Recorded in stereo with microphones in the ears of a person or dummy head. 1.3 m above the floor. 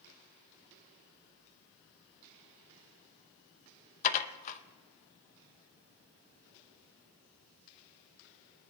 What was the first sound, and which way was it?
Dishes clattering, 40° left (ahead or behind).